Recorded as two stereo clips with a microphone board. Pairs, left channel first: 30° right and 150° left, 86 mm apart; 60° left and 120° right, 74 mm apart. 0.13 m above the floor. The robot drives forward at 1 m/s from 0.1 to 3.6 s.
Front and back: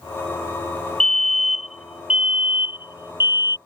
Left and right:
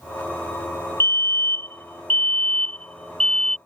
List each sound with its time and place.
1.0 s a fire alarm: 45° left; by 3.6 s 135° left